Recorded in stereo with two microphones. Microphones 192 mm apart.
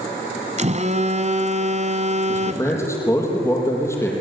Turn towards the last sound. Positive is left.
turn(degrees=15)  # may be behind; listen again after turning